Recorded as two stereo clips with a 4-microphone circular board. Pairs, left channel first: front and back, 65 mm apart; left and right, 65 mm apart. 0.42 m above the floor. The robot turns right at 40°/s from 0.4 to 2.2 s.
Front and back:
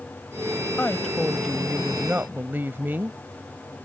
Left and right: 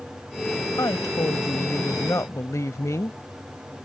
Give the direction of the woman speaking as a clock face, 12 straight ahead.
10 o'clock.